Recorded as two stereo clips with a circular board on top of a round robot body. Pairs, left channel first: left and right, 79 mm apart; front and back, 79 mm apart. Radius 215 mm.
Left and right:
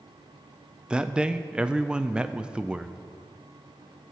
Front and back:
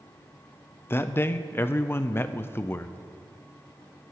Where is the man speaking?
25° right, 0.6 m.